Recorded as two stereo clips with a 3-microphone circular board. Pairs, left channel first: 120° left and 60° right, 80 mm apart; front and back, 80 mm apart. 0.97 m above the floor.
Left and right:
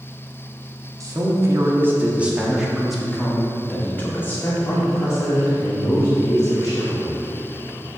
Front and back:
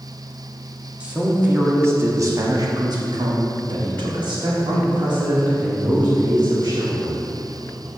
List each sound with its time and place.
1.0 s a man speaking: 105° right, 1.7 m; by 7.3 s 160° left, 3.5 m